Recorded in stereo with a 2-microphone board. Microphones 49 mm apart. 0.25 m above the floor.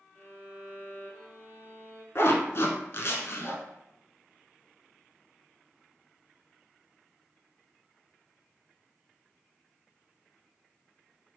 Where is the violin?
35° left (ahead or behind), 1.1 m.